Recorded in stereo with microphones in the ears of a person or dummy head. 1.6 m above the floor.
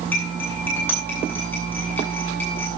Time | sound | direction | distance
0.1 | cutlery clinking | 10° left (ahead or behind) | 8 m